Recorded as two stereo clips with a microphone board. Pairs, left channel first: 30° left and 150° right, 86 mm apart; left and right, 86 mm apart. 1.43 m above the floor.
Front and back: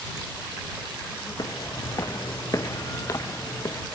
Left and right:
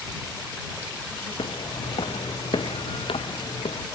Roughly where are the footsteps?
Left.